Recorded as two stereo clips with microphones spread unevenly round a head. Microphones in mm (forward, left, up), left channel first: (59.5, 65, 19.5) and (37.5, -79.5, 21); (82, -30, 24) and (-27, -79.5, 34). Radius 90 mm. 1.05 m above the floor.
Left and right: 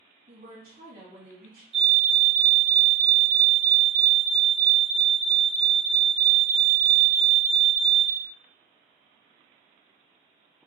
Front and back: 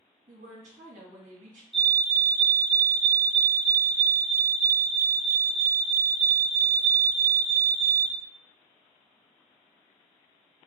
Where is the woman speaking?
130° right, 2 m.